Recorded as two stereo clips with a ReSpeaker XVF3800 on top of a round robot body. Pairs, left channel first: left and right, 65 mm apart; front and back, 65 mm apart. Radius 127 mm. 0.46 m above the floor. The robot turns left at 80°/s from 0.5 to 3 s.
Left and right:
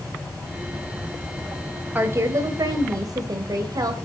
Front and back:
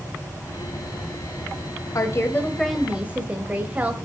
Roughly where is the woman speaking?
Ahead right.